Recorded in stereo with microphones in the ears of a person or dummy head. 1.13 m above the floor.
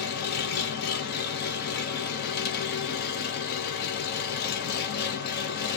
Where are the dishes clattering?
I don't hear dishes clattering.